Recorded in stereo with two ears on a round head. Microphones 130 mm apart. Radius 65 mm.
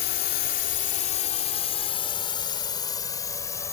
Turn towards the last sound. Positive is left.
turn(degrees=20)  # may be behind; listen again after turning